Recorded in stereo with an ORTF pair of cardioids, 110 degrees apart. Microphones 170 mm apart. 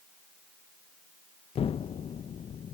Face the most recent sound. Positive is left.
turn(degrees=35)